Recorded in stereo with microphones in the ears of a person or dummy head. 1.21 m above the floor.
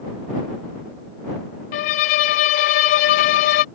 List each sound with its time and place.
1.7 s a violin: 40° left (ahead or behind)